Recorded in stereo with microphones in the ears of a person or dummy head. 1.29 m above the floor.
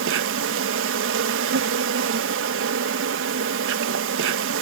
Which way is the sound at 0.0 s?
65° right (ahead or behind).